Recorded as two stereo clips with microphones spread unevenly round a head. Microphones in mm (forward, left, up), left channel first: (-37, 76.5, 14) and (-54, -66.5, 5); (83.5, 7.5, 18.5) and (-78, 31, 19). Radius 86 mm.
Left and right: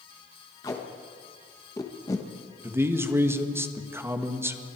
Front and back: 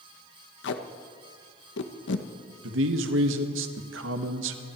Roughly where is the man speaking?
Behind.